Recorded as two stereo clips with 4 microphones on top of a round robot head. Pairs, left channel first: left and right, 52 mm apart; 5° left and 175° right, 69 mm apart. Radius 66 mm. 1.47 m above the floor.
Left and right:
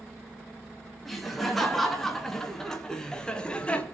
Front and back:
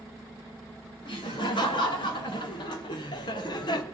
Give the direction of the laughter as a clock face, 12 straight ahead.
12 o'clock.